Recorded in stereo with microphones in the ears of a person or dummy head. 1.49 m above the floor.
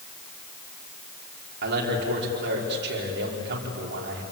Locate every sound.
1.6 s a man speaking: 60° right (ahead or behind), 4.5 m